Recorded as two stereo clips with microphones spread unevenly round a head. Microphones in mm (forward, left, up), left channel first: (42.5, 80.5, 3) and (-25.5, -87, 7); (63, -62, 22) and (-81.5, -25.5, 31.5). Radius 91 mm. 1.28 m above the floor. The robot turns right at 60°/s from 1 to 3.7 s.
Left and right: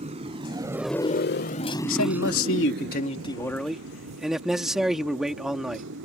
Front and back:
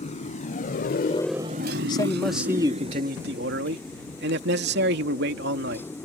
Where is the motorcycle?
55° right; by 6.0 s 90° right.